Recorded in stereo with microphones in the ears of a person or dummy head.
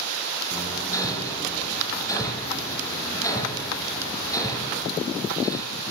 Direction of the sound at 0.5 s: 30° left (ahead or behind).